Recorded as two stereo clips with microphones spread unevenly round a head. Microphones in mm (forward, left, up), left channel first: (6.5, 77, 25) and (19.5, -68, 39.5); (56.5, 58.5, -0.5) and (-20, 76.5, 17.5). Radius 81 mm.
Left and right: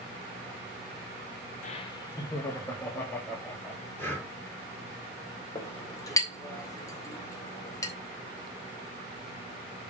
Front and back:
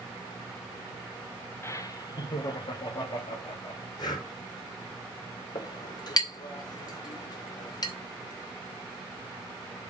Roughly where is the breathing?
Ahead.